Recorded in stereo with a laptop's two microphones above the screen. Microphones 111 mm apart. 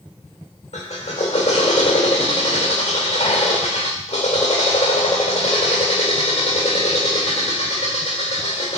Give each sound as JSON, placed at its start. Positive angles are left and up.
{"t": 0.7, "sound": "a drill", "side_deg": 85, "distance_m": 1.7}